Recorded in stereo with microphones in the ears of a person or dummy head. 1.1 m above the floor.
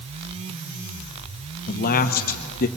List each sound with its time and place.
1.7 s a man speaking: 40° left (ahead or behind), 0.9 m